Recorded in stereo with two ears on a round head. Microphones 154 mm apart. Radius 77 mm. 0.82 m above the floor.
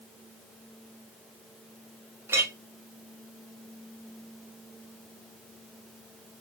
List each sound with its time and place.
2.3 s a clink: 15° right (ahead or behind), 0.8 m